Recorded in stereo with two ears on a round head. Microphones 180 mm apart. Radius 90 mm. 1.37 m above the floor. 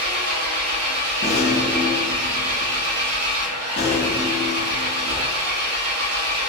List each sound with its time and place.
0.0 s an engine running: 80° right, 0.8 m
1.2 s a rattle: 30° left (ahead or behind), 0.7 m